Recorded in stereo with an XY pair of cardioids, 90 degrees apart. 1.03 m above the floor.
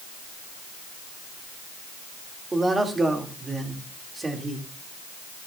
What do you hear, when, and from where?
2.5 s a man speaking: 30° right, 2.5 m